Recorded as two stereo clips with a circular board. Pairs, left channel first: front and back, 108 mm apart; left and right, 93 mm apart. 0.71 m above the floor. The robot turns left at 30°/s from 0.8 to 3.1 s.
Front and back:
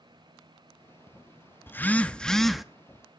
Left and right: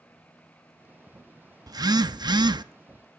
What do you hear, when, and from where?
1.7 s a phone buzzing: 65° right, 0.8 m; by 2.6 s 95° right, 0.8 m